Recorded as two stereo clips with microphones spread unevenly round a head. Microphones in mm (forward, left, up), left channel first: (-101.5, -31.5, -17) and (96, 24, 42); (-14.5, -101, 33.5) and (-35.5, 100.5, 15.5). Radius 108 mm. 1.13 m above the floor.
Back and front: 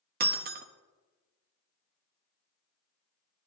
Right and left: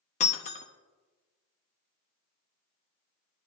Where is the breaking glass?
25° right, 0.9 m.